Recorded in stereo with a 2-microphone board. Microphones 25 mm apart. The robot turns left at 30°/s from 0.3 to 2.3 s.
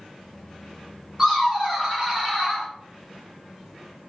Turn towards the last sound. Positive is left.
turn(degrees=-20)  # may be behind; listen again after turning